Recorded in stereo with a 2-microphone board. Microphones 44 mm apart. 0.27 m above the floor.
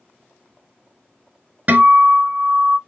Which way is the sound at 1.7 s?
40° right (ahead or behind).